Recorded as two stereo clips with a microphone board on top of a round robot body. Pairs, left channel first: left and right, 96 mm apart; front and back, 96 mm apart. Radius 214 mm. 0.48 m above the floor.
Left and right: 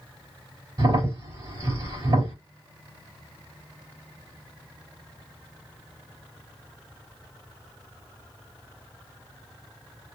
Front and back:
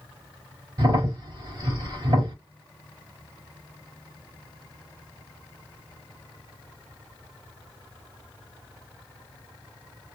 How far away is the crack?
About 3 m.